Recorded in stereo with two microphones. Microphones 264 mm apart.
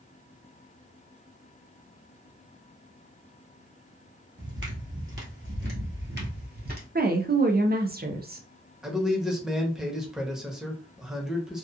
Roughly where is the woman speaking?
Right.